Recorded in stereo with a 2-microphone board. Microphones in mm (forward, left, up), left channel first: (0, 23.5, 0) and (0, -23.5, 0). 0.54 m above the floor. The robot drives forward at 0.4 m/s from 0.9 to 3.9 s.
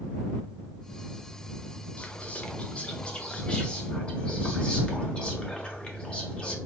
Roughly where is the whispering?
Left.